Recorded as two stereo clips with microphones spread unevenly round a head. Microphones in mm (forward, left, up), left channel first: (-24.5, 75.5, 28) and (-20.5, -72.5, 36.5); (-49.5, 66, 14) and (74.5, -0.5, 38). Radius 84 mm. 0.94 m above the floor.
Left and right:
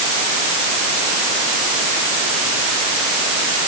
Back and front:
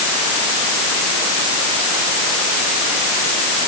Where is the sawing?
I don't hear sawing.